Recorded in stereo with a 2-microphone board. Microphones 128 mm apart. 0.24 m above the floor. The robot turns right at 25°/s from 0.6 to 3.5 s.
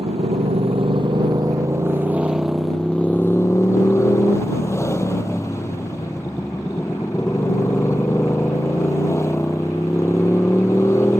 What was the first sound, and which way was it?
A motorcycle, 50° right.